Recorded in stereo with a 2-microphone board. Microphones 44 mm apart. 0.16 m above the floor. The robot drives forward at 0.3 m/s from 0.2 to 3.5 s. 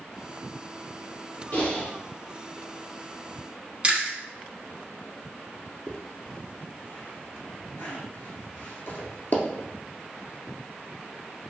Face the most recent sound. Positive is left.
turn(degrees=55)  # may be behind; listen again after turning